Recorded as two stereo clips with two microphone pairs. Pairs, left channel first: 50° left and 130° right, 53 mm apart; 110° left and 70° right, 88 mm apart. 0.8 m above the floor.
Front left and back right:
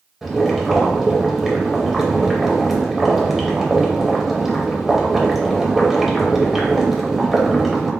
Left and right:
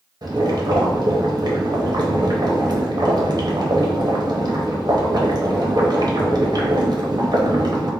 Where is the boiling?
50° right, 0.7 m.